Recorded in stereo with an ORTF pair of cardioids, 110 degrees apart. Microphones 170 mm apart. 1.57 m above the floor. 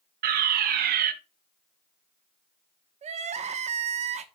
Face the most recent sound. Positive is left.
turn(degrees=-45)